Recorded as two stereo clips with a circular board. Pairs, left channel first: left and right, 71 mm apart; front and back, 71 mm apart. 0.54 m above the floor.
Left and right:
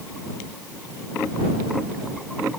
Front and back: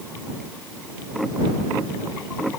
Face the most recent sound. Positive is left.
No sound to turn to.